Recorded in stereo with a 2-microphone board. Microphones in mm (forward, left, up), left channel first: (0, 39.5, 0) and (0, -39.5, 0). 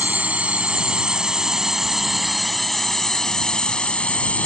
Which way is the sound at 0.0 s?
20° right (ahead or behind).